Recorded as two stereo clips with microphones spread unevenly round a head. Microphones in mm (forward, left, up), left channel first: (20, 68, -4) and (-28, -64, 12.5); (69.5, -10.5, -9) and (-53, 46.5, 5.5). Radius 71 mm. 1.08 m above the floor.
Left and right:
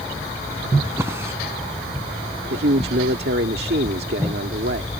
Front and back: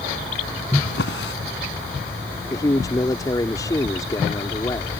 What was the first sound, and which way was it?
A drawer, 35° right.